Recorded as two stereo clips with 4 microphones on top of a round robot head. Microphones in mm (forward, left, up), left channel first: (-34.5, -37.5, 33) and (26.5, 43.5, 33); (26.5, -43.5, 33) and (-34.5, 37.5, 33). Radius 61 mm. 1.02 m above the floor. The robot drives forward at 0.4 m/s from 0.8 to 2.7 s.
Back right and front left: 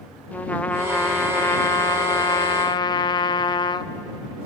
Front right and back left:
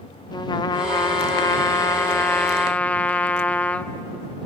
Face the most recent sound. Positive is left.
turn(degrees=-120)